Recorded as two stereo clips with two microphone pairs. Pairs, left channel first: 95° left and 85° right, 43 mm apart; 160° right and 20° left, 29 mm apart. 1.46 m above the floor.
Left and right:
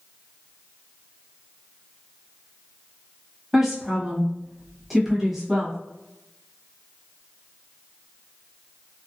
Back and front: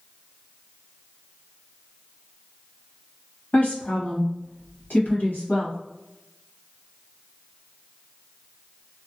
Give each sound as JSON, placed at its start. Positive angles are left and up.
{"t": 3.5, "sound": "a woman speaking", "azimuth_deg": -165, "distance_m": 1.2}